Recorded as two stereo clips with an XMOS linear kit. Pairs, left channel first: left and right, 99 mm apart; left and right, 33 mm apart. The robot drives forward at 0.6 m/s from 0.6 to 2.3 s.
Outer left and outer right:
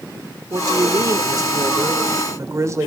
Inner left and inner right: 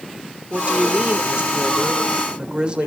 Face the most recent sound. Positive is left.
turn(degrees=-30)  # may be behind; listen again after turning